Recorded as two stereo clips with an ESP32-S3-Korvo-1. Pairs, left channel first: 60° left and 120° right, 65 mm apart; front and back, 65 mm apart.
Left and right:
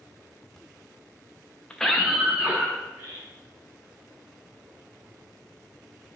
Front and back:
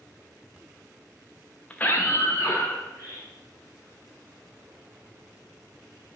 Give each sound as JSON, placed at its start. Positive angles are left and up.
{"t": 1.7, "sound": "a scream", "azimuth_deg": 20, "distance_m": 0.6}